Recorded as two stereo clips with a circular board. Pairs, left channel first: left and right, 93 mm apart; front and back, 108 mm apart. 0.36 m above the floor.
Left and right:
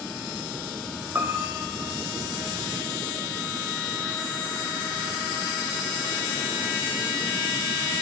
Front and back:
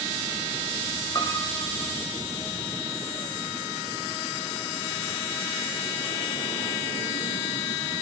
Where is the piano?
30° right, 1.7 m.